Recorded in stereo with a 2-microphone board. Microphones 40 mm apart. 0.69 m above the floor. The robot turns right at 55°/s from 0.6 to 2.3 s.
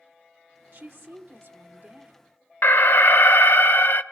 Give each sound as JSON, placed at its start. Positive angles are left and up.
{"t": 0.7, "sound": "a woman speaking", "azimuth_deg": -110, "distance_m": 1.4}
{"t": 2.6, "sound": "an alarm", "side_deg": 60, "distance_m": 0.7}